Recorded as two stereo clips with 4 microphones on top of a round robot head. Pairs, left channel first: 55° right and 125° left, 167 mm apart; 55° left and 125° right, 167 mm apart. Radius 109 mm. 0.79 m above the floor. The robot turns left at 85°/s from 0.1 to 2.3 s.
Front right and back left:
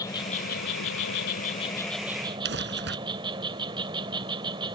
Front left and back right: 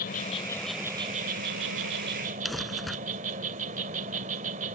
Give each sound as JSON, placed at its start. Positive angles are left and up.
{"t": 0.0, "sound": "an insect", "azimuth_deg": 15}
{"t": 2.5, "sound": "crumpling", "azimuth_deg": 145}